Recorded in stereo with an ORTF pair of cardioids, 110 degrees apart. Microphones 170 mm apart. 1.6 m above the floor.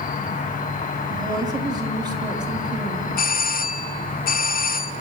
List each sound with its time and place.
0.0 s an insect: 50° left, 2.5 m
1.1 s a woman speaking: 25° right, 5 m
3.2 s a doorbell: 60° left, 0.8 m